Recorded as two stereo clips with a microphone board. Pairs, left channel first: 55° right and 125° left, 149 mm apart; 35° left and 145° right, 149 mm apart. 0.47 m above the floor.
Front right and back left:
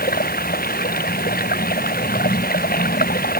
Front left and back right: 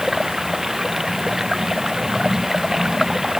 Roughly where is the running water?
Ahead right.